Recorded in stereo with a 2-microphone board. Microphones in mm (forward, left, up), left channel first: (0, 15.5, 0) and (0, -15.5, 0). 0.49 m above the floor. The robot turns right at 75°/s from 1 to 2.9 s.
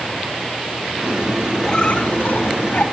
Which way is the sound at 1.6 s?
20° left.